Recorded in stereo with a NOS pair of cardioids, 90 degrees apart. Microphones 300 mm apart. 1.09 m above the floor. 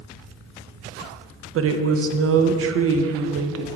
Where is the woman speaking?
50° right, 0.7 m.